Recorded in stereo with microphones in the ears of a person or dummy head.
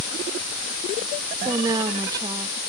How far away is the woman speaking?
About 2 m.